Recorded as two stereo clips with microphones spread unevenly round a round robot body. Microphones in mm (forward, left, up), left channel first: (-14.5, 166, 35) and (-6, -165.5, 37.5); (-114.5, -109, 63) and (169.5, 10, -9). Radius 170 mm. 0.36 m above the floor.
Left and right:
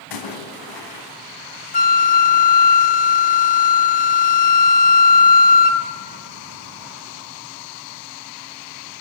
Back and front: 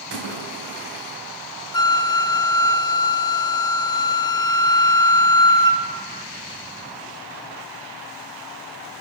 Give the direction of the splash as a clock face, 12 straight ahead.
10 o'clock.